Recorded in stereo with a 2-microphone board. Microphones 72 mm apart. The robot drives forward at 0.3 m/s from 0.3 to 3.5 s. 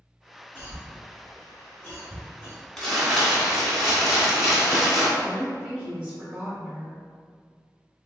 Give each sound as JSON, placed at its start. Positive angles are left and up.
{"t": 0.6, "sound": "a cough", "side_deg": 35, "distance_m": 1.7}
{"t": 2.8, "sound": "crumpling", "side_deg": 5, "distance_m": 1.5}
{"t": 5.2, "sound": "a woman speaking", "side_deg": -10, "distance_m": 1.6}